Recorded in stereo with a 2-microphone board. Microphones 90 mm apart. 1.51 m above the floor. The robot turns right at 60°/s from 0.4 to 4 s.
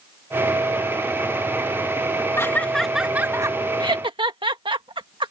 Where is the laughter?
30° left (ahead or behind); by 5.3 s 65° right (ahead or behind).